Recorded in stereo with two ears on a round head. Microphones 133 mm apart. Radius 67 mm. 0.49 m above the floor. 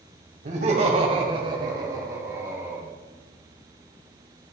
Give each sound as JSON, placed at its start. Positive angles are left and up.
{"t": 0.5, "sound": "laughter", "side_deg": -50, "distance_m": 2.0}